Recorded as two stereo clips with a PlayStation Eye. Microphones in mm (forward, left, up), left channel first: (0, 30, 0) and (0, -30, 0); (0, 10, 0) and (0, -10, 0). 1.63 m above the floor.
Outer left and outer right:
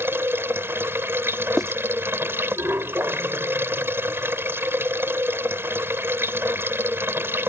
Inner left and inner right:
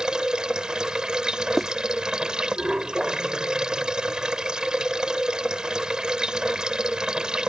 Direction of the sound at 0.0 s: 40° right (ahead or behind).